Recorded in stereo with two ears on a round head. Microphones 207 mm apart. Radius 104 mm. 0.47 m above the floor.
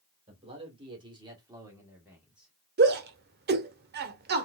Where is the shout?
45° right (ahead or behind), 1.1 m.